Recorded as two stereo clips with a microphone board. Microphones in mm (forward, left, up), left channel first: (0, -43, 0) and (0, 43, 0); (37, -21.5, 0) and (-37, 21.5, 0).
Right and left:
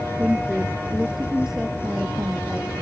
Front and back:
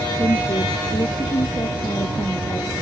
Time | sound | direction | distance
0.2 | a woman speaking | 5° left | ?